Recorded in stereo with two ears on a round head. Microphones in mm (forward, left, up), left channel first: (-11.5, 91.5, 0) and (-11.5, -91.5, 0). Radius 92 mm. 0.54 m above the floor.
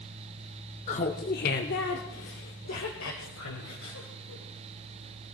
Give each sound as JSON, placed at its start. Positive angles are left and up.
{"t": 0.9, "sound": "laughter", "side_deg": 30, "distance_m": 0.8}